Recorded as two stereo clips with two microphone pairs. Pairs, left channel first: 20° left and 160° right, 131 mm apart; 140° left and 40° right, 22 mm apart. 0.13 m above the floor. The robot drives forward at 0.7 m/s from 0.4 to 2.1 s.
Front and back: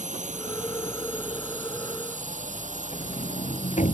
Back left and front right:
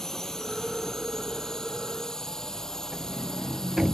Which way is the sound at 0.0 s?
160° right.